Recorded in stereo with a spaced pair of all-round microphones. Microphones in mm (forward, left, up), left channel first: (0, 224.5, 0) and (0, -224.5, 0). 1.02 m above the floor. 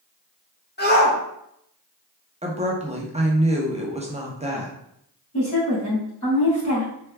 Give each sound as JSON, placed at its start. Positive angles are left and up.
{"t": 0.8, "sound": "a shout", "side_deg": 20, "distance_m": 1.3}
{"t": 2.4, "sound": "a woman speaking", "side_deg": -15, "distance_m": 0.6}
{"t": 5.3, "sound": "a woman speaking", "side_deg": 45, "distance_m": 2.0}